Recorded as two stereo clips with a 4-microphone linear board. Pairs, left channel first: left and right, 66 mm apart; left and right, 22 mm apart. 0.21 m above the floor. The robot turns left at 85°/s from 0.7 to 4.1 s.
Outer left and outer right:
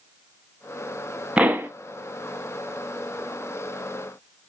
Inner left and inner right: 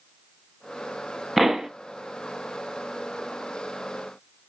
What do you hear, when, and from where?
1.4 s a pop: 15° right (ahead or behind), 0.7 m; by 1.7 s 35° right (ahead or behind), 0.7 m